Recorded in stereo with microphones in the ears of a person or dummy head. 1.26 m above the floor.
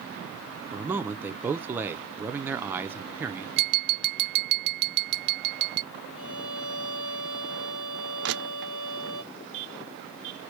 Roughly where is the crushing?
Right.